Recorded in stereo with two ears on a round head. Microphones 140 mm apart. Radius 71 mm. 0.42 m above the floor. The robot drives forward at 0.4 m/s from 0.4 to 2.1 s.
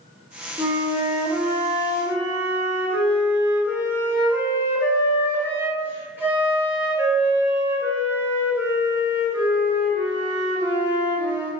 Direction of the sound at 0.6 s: 20° right (ahead or behind).